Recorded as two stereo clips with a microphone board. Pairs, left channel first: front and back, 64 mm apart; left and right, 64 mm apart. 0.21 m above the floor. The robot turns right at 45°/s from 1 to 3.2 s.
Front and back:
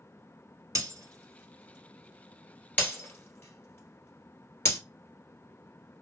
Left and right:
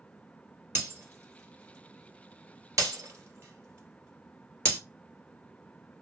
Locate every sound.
0.8 s breaking glass: 140° right, 1.5 m; by 4.8 s 45° right, 1.5 m